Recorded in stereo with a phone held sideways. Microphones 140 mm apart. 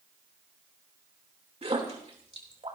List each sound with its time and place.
1.6 s a splash: 45° right (ahead or behind), 3 m